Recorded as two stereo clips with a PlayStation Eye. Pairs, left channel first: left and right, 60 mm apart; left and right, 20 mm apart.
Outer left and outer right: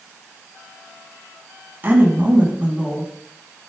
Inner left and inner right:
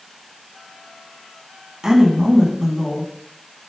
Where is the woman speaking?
35° right (ahead or behind), 2 m; by 3.1 s 20° right (ahead or behind), 2.5 m.